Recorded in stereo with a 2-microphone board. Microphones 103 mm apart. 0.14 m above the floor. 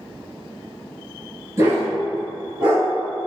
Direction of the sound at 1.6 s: 25° right (ahead or behind).